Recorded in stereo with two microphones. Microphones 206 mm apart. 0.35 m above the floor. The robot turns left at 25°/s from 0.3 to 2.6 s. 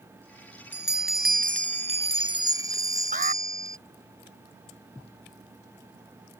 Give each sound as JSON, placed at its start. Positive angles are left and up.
{"t": 0.7, "sound": "a bell", "azimuth_deg": -115}
{"t": 3.1, "sound": "an alarm", "side_deg": -50}